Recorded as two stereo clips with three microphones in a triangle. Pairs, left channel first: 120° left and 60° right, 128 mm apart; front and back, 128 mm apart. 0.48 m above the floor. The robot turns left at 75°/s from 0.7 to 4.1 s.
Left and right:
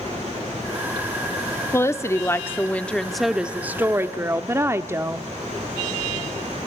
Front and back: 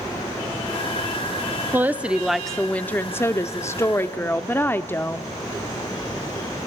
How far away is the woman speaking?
About 0.7 m.